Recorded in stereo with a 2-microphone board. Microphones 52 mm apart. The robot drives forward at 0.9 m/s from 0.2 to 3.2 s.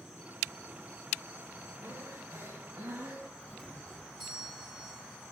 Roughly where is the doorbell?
Centre.